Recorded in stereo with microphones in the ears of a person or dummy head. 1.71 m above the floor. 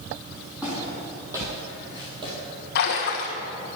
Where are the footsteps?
5° right (ahead or behind), 3.5 m; by 2.3 s 25° right (ahead or behind), 3.5 m.